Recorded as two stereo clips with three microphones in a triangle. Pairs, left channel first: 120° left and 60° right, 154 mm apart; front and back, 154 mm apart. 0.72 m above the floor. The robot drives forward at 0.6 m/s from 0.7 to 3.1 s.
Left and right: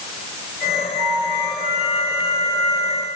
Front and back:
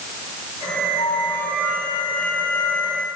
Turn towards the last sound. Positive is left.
turn(degrees=-85)